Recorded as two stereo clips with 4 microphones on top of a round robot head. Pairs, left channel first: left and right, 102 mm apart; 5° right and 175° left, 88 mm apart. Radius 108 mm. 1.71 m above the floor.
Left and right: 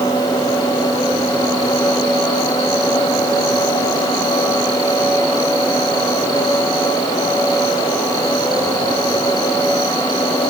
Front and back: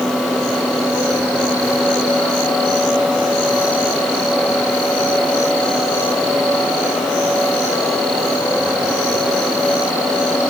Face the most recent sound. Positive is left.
No sound to turn to.